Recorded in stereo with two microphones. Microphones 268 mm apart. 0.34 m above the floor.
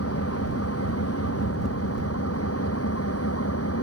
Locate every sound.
0.0 s an engine running: 60° left (ahead or behind)